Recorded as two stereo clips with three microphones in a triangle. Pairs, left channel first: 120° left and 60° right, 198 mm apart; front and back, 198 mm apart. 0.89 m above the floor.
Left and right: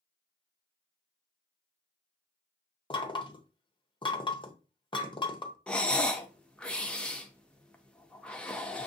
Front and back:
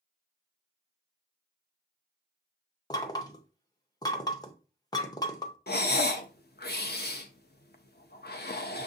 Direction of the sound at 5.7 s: 35° left.